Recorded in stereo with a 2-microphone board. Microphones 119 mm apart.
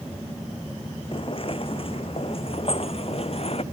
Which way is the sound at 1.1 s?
50° left (ahead or behind).